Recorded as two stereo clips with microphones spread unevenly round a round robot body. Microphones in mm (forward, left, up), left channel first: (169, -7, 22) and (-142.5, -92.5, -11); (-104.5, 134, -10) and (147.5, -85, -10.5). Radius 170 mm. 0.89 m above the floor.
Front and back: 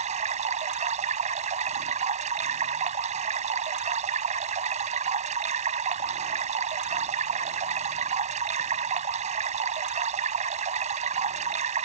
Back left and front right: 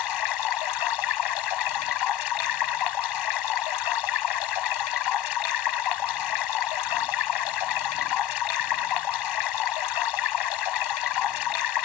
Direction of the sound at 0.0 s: 125° left.